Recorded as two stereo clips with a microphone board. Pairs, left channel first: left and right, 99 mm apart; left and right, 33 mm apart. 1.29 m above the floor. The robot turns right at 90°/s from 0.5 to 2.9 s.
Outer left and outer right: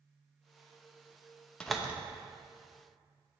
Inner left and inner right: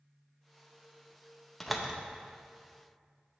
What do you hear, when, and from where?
1.6 s a door slam: 10° left (ahead or behind), 0.7 m; by 1.9 s 15° right (ahead or behind), 0.7 m